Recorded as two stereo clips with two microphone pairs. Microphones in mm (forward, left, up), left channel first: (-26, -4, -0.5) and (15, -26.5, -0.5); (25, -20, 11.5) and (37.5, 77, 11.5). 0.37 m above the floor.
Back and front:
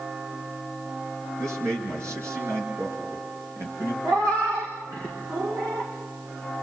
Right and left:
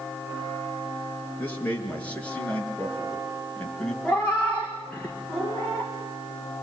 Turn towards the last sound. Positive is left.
turn(degrees=-15)